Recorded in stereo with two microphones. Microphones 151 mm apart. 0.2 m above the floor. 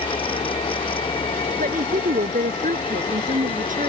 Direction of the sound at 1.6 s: 65° right (ahead or behind).